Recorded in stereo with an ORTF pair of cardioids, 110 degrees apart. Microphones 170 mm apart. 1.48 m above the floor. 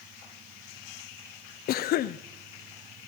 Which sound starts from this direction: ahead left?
A cough, at 1.7 s.